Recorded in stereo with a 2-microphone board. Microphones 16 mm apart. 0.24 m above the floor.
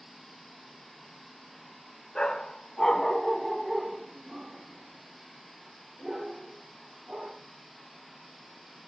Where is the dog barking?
65° left (ahead or behind), 0.9 m; by 7.4 s 75° right (ahead or behind), 2.5 m.